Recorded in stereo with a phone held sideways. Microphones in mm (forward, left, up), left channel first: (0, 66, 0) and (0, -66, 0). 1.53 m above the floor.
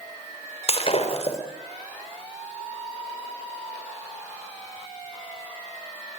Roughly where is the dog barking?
I don't hear a dog barking.